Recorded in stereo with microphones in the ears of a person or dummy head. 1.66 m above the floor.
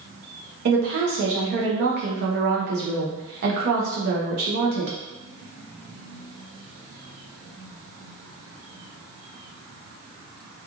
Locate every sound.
0.7 s a woman speaking: 50° right (ahead or behind), 1.0 m